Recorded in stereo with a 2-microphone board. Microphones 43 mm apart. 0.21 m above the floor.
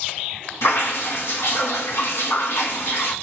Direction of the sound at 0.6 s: 80° left.